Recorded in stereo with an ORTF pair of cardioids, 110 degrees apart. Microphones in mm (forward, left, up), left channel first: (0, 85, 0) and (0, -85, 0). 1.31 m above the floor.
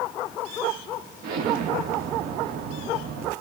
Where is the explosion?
65° right, 1.2 m.